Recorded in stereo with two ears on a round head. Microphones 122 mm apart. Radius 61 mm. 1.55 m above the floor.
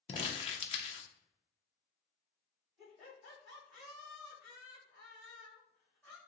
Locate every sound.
0.1 s crumpling: 40° left (ahead or behind), 0.6 m
2.8 s laughter: centre (ahead or behind), 1.9 m